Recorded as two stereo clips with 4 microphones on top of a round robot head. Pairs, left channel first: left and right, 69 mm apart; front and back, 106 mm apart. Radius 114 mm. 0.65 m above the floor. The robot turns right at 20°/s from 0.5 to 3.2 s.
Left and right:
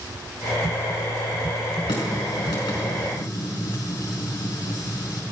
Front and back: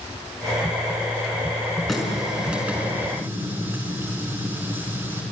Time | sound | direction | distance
1.9 | a running tap | 90° left | 5.5 m